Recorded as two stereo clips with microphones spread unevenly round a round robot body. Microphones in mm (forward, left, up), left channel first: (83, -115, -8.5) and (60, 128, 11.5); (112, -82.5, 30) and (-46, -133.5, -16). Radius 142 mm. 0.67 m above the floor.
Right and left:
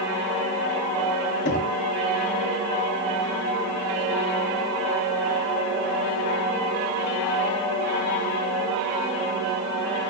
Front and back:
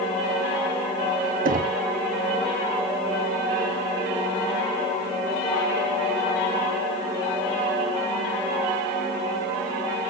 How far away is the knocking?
About 0.7 m.